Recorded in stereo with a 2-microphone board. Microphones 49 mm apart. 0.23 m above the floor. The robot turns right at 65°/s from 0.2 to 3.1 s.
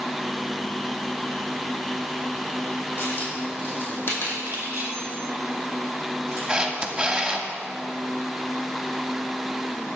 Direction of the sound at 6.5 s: 20° right (ahead or behind).